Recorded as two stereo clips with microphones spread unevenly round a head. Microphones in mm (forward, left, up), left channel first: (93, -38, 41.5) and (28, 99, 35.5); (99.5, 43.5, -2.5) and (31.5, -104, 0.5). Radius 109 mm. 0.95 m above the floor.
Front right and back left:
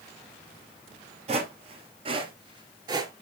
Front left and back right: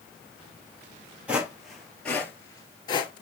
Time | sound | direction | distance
1.3 | footsteps | 165° left | 1.2 m